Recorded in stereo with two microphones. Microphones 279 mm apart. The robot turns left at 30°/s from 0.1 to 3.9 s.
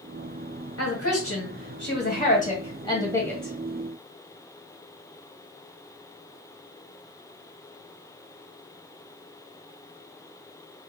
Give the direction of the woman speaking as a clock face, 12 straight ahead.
9 o'clock.